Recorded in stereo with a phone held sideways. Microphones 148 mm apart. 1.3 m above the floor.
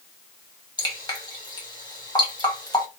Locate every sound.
0.8 s dripping: 30° left (ahead or behind), 1.4 m